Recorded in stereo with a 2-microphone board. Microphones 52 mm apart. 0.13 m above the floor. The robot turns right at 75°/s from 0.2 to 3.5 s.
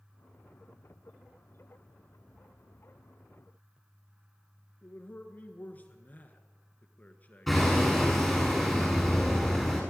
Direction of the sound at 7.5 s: Centre (ahead or behind).